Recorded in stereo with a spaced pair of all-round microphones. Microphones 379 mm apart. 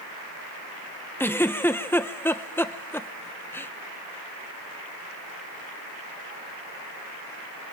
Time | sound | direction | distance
1.2 | a giggle | 5° left (ahead or behind) | 1.1 m